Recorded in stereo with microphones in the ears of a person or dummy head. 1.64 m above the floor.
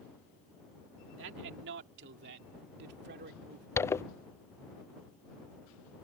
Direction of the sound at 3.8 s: 10° left (ahead or behind).